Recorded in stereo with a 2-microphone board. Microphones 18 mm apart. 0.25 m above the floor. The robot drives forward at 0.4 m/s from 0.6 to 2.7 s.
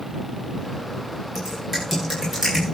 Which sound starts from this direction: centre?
Typing on a keyboard, at 1.4 s.